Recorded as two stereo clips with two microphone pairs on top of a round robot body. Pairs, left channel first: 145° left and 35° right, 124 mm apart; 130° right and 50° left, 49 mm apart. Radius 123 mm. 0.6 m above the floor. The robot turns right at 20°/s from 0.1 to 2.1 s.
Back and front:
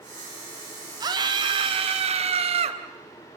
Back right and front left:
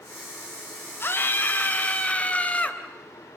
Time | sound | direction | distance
1.0 | a scream | 90° right | 3.5 m